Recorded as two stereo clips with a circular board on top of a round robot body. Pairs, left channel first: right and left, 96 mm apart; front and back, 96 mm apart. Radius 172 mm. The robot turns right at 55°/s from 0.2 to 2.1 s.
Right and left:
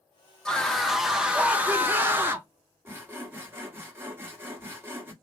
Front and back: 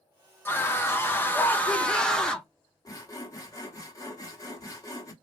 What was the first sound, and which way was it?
A scream, 20° right.